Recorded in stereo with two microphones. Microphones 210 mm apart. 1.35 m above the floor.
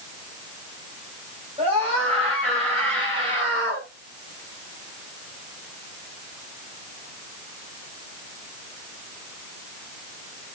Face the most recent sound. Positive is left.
turn(degrees=-25)  # may be behind; listen again after turning